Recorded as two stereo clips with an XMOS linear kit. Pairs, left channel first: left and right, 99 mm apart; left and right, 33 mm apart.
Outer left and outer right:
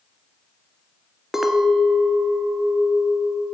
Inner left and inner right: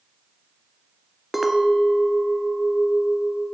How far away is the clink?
About 1.0 m.